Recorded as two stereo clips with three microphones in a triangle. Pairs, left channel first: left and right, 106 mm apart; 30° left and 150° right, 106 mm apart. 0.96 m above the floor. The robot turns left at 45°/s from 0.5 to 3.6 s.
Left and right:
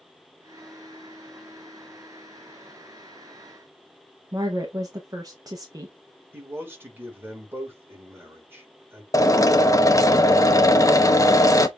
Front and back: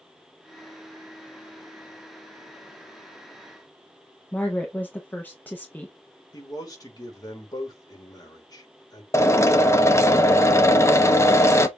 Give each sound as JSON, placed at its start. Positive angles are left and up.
{"t": 4.3, "sound": "a woman speaking", "azimuth_deg": -45, "distance_m": 0.8}
{"t": 6.3, "sound": "a man speaking", "azimuth_deg": -20, "distance_m": 2.0}
{"t": 9.1, "sound": "a drill", "azimuth_deg": 70, "distance_m": 0.7}